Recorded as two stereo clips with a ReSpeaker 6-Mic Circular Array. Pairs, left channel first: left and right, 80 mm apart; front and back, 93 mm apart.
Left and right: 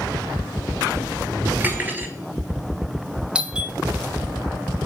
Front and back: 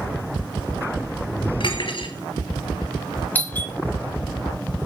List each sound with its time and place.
1.6 s cutlery clinking: 25° right, 2.5 m
3.4 s a doorbell: 35° right, 1.5 m